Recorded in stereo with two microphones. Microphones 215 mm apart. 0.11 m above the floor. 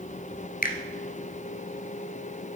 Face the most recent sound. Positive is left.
turn(degrees=40)  # may be behind; listen again after turning